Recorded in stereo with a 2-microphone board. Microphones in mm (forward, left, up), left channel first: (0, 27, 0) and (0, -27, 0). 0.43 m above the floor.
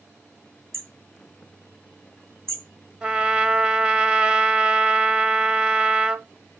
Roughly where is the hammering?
Right.